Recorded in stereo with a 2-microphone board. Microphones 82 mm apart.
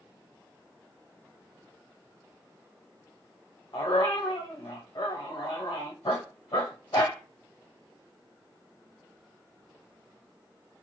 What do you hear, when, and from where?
3.7 s a dog barking: 65° left (ahead or behind), 1.2 m